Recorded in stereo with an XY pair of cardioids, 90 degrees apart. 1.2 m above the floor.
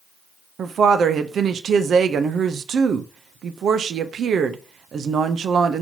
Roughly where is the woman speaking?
Ahead right.